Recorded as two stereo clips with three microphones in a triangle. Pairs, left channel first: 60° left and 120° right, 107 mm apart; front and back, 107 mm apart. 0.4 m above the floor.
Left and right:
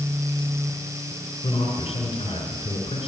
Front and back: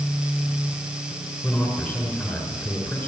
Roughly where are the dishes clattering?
I don't hear dishes clattering.